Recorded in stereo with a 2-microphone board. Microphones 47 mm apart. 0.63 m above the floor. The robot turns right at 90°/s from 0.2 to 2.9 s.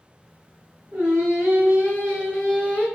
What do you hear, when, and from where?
0.9 s singing: 135° right, 1.6 m; by 2.9 s 40° left, 1.6 m